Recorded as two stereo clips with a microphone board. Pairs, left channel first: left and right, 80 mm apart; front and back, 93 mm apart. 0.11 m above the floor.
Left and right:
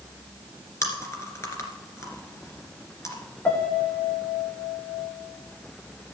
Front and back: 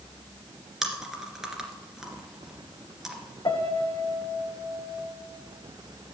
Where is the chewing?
95° left, 1.9 m.